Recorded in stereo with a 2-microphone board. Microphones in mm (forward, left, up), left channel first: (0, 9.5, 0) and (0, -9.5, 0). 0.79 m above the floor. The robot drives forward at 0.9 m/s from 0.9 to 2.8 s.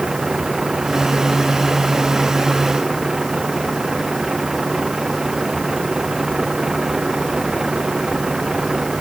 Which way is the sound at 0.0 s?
30° right (ahead or behind).